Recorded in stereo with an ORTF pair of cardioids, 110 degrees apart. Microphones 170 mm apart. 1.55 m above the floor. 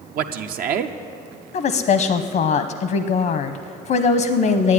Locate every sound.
0.1 s a man speaking: 60° right, 0.7 m
1.5 s a woman speaking: 55° left, 0.8 m